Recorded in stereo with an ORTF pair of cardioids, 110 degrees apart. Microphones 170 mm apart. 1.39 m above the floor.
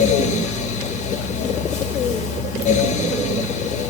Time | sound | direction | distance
0.0 | a fan | 50° left | 0.8 m